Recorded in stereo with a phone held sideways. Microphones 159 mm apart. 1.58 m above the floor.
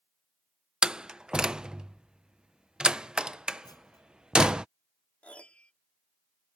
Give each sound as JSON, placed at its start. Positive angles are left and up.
{"t": 0.8, "sound": "a door slam", "side_deg": -5}
{"t": 3.6, "sound": "a clunk", "side_deg": 25}
{"t": 5.2, "sound": "a piano", "side_deg": 5}